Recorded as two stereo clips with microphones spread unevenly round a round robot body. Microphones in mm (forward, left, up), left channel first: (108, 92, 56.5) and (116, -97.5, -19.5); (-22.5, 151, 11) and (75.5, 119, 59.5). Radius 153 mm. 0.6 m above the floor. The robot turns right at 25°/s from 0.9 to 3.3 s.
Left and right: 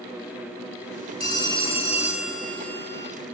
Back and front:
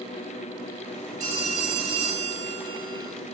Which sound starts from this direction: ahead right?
A phone ringing, at 1.2 s.